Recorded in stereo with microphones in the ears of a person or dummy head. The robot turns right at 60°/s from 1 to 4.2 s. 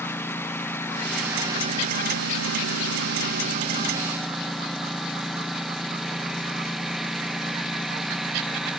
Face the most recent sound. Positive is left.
turn(degrees=0)